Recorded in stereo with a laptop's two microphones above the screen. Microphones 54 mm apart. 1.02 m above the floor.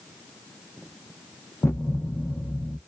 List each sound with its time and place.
1.6 s a thud: 50° left (ahead or behind), 0.5 m